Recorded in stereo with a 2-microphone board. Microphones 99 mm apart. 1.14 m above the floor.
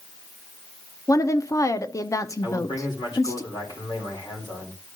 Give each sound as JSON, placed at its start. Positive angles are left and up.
{"t": 1.1, "sound": "a woman speaking", "side_deg": 35, "distance_m": 0.7}
{"t": 2.4, "sound": "a man speaking", "side_deg": 50, "distance_m": 2.5}